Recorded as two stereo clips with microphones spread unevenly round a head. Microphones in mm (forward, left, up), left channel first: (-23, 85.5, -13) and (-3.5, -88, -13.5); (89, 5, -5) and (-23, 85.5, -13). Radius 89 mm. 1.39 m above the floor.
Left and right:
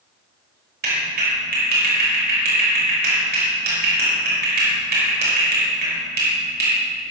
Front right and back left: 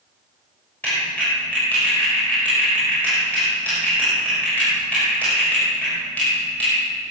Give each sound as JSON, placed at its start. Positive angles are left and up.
{"t": 0.8, "sound": "a clap", "azimuth_deg": -115, "distance_m": 6.0}